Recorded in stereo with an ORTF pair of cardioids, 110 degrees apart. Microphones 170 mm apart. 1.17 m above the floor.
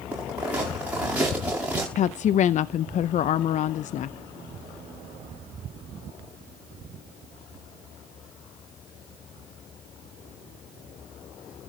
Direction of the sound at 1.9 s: 50° left.